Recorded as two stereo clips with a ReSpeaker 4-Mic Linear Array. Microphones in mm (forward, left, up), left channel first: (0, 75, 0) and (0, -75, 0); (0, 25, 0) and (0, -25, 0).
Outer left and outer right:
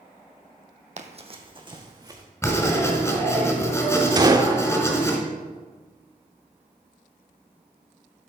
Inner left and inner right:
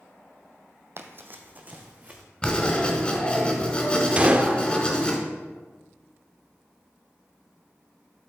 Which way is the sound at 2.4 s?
20° left (ahead or behind).